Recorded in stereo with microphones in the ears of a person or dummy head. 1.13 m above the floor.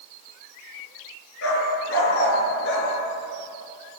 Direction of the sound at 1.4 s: 75° left (ahead or behind).